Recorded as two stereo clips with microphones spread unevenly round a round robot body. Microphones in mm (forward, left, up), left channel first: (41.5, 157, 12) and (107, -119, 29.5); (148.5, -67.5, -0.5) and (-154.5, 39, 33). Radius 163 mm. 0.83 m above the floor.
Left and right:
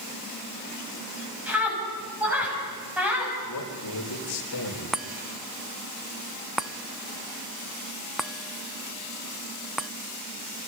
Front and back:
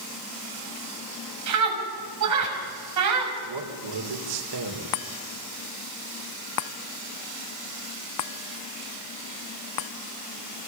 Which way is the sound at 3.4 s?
140° left.